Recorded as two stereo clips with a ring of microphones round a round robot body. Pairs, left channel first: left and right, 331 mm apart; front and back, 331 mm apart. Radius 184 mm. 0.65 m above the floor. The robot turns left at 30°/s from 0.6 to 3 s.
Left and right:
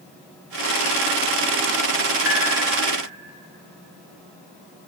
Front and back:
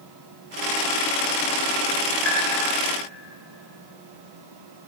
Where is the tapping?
145° right, 7.5 m; by 2.4 s 150° right, 7.5 m.